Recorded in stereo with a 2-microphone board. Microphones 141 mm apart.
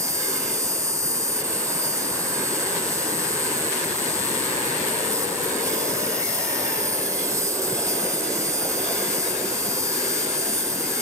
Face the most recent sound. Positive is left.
turn(degrees=-20)  # may be behind; listen again after turning